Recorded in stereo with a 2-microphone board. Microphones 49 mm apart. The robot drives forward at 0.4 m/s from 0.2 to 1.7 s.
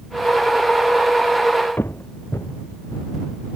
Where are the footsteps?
45° left (ahead or behind), 0.8 m; by 3.5 s 80° left, 3 m.